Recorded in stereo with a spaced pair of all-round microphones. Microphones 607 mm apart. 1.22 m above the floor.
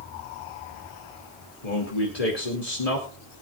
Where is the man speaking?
80° left, 2.5 m.